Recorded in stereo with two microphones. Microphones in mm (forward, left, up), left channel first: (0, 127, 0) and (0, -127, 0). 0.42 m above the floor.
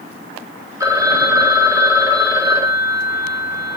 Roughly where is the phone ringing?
Centre.